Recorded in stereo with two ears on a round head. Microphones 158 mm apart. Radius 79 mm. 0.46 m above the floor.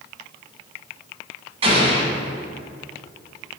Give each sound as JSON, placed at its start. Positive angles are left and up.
{"t": 1.6, "sound": "an explosion", "side_deg": -35, "distance_m": 2.0}